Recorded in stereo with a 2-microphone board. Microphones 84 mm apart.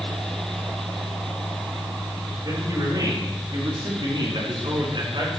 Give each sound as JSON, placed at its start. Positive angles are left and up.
{"t": 2.4, "sound": "a man speaking", "side_deg": -50, "distance_m": 6.5}